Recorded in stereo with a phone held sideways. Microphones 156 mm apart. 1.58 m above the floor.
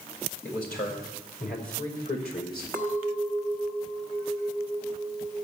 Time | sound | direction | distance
0.4 | a man speaking | 70° left (ahead or behind) | 6 m
2.7 | a clink | 15° left (ahead or behind) | 1.4 m